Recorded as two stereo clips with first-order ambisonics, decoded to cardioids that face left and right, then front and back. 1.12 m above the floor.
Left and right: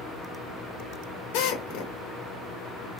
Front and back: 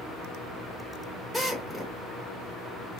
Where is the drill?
95° left, 1.3 m.